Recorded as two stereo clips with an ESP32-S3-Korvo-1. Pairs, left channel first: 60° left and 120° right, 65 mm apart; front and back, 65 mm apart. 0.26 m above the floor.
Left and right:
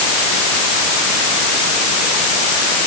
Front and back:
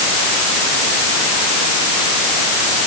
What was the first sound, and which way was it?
Only background noise.